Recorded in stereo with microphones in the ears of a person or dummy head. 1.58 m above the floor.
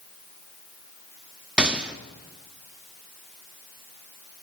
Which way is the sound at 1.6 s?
5° right (ahead or behind).